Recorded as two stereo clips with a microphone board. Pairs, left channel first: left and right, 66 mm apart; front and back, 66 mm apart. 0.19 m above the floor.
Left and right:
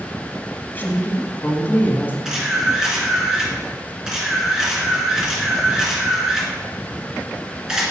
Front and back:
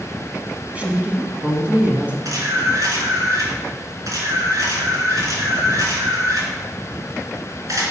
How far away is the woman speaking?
About 1.6 m.